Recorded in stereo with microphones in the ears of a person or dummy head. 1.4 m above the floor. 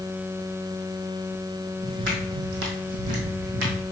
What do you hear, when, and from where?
1.8 s footsteps: 55° right (ahead or behind), 2.5 m